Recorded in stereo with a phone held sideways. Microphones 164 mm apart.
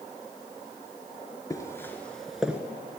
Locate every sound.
1.5 s footsteps: 20° left (ahead or behind), 1.4 m; by 2.6 s 10° right (ahead or behind), 1.3 m